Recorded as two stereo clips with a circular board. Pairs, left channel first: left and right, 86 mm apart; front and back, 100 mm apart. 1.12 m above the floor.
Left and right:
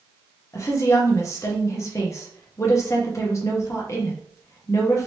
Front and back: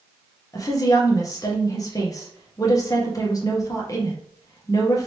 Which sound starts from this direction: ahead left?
A woman speaking, at 0.5 s.